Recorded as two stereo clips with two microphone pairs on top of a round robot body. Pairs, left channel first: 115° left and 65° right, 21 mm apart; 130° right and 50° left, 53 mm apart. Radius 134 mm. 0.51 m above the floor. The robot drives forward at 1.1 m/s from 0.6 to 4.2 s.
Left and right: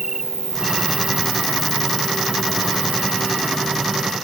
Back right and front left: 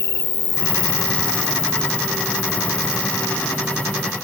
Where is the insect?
130° right; by 4.2 s 170° right.